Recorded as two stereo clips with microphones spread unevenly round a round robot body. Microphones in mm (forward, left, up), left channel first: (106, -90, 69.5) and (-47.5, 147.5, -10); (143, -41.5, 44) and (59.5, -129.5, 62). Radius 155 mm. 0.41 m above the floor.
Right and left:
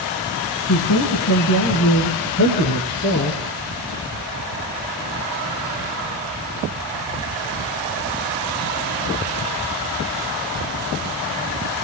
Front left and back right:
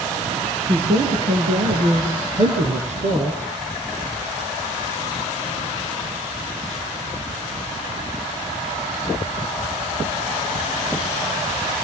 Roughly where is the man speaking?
Right.